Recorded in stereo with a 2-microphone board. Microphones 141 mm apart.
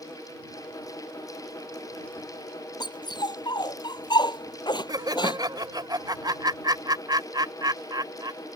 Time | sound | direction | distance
2.8 | a dog barking | 30° left (ahead or behind) | ?
4.9 | laughter | 30° right (ahead or behind) | ?